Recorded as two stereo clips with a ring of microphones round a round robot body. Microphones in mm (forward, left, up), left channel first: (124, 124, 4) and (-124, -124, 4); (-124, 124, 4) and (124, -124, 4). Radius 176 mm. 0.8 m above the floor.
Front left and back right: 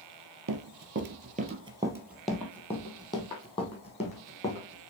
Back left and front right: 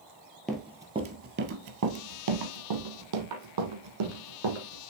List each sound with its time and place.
0.5 s running footsteps: 140° right, 0.9 m; by 4.9 s 25° right, 2.5 m